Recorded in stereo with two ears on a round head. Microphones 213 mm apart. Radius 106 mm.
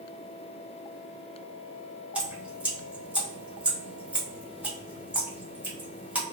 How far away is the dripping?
About 1.1 m.